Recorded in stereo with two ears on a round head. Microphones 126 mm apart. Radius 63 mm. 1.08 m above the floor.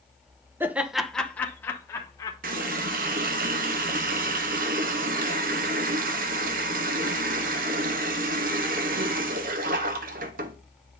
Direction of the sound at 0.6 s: 15° right (ahead or behind).